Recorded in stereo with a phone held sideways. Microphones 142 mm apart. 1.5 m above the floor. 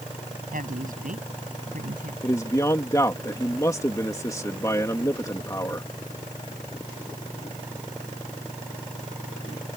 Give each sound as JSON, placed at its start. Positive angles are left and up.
{"t": 0.5, "sound": "a woman speaking", "side_deg": -80}
{"t": 2.2, "sound": "a man speaking", "side_deg": 25}